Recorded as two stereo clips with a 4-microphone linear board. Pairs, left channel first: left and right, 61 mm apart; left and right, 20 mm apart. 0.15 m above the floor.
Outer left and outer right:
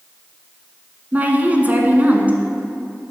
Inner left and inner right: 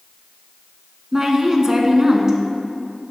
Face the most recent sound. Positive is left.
turn(degrees=-25)  # may be behind; listen again after turning